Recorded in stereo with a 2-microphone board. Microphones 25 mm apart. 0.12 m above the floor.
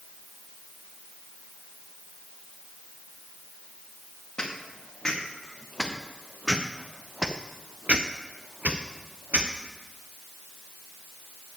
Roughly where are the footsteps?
Left.